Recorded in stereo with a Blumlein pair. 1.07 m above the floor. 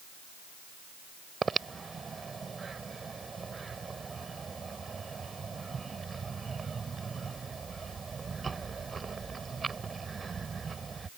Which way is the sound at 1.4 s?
15° right.